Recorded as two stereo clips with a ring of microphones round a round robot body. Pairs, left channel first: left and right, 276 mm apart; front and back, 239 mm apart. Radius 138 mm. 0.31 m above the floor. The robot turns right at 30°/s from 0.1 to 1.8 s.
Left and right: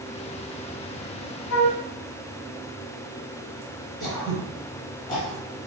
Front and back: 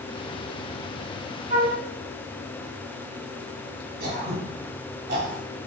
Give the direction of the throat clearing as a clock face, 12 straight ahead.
7 o'clock.